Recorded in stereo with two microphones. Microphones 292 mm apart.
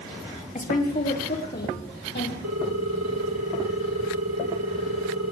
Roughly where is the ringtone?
Right.